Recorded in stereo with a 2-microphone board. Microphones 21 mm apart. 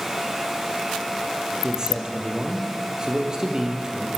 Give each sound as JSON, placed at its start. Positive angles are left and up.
{"t": 1.6, "sound": "a man speaking", "side_deg": -30, "distance_m": 4.0}